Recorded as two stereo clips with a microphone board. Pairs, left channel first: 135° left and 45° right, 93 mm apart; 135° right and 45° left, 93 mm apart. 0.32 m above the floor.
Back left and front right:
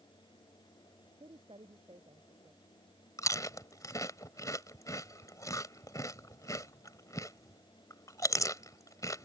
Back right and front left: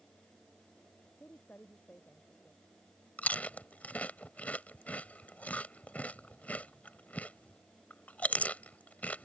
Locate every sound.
1.2 s a woman speaking: 60° right
3.2 s chewing: 160° left